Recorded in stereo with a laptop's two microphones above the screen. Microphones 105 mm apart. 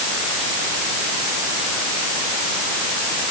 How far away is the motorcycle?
No motorcycle in this recording.